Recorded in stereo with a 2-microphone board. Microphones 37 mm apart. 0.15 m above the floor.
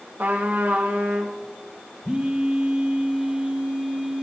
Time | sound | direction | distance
0.2 | a trumpet | 65° right (ahead or behind) | 2 m
2.0 | a phone buzzing | 30° right (ahead or behind) | 1.9 m